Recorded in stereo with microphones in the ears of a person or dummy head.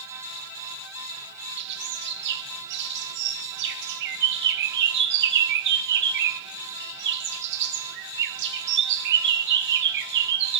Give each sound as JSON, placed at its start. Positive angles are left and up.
{"t": 1.6, "sound": "a bird", "side_deg": -65, "distance_m": 1.1}